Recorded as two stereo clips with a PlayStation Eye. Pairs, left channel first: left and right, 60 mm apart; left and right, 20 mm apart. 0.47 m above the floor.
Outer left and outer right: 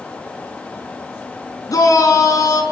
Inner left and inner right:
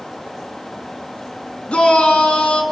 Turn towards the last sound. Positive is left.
turn(degrees=70)  # may be behind; listen again after turning